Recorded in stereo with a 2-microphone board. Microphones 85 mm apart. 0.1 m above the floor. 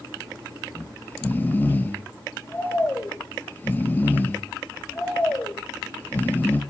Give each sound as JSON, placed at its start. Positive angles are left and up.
{"t": 0.7, "sound": "snoring", "side_deg": 25, "distance_m": 3.0}